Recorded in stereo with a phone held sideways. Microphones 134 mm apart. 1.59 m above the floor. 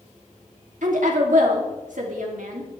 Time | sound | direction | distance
0.8 | a woman speaking | 70° right (ahead or behind) | 3 m